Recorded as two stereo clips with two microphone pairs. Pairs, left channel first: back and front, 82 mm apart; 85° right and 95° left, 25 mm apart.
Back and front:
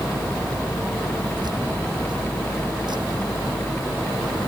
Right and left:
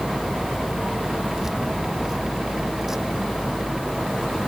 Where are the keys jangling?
25° left; by 4.3 s 20° left.